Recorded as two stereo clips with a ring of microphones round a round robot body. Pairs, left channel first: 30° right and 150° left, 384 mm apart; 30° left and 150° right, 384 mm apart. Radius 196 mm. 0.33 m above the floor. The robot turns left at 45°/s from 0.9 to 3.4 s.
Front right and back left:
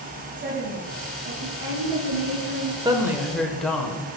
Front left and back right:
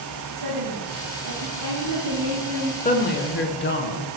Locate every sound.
0.4 s a woman speaking: 150° right, 4 m; by 2.8 s 125° left, 4 m
2.9 s a woman speaking: 80° left, 1.2 m; by 4.1 s 55° left, 1.2 m